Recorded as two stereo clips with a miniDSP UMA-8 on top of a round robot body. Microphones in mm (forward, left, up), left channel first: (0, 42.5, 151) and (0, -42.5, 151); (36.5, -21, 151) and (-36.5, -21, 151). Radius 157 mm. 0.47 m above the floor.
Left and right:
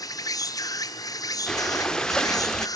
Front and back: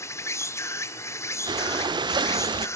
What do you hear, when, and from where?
0.0 s an insect: 50° left, 1.2 m
1.5 s breathing: 170° left, 0.8 m